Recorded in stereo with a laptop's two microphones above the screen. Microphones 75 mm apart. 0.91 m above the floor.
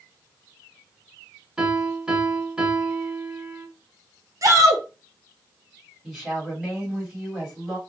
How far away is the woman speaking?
About 1.5 m.